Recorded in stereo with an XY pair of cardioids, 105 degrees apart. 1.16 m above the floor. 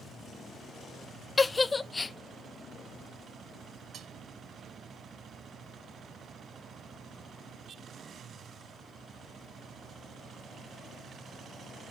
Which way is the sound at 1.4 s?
25° left.